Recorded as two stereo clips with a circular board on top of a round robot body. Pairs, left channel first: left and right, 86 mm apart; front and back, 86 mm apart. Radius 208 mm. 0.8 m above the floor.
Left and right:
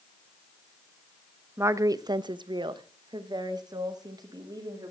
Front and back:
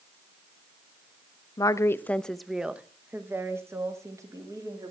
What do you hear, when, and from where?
1.6 s a woman speaking: 35° right, 0.7 m; by 4.9 s 130° right, 2.0 m